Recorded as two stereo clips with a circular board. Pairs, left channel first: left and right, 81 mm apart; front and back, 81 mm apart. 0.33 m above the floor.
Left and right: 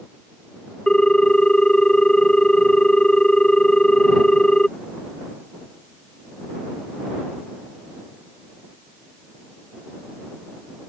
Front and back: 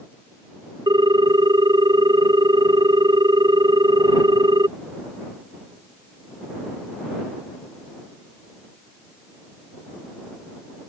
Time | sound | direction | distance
0.9 | a ringtone | 170° left | ?